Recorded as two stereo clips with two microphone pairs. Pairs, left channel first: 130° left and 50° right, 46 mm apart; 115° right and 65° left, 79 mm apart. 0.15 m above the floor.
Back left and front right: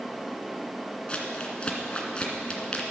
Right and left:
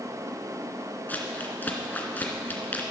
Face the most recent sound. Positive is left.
turn(degrees=-175)